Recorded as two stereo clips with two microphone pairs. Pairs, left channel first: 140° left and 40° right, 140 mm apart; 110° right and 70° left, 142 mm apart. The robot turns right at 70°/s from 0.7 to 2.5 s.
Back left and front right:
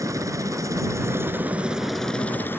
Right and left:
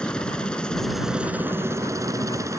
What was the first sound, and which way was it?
A helicopter, 35° right.